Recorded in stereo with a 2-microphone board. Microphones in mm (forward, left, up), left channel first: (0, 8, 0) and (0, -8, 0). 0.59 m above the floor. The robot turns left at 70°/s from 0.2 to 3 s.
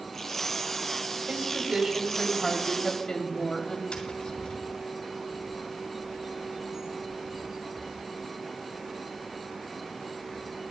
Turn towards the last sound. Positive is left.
turn(degrees=-25)  # may be behind; listen again after turning